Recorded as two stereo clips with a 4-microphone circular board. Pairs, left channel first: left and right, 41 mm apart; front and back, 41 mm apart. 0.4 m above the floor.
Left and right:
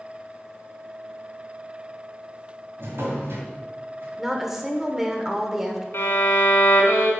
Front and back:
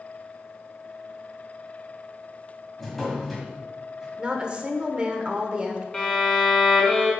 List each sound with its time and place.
2.8 s a drawer: 80° right, 1.8 m
4.2 s a woman speaking: 165° right, 0.9 m
5.9 s a violin: 70° left, 1.5 m